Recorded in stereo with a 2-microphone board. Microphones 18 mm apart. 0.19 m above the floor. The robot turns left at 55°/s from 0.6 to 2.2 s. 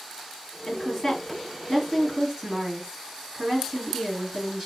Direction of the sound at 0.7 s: 55° left.